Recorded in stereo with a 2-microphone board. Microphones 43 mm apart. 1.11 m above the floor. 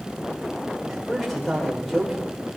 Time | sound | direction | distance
0.9 | a man speaking | 5° left (ahead or behind) | 5 m